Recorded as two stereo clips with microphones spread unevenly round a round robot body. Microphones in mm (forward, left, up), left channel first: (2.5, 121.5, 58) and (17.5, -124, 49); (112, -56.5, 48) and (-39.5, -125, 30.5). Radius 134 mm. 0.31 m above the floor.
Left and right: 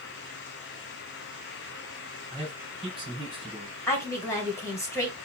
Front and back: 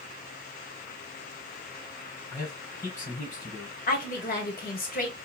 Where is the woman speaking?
15° left, 1.9 m.